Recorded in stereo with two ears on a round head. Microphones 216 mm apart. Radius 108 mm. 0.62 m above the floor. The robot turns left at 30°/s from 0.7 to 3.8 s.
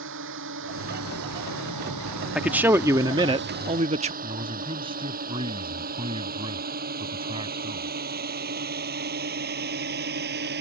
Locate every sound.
0.0 s a drone: 50° right (ahead or behind); by 10.6 s 45° right (ahead or behind)
2.4 s a man speaking: 5° right; by 4.1 s 50° right
4.2 s a man speaking: 20° right (ahead or behind)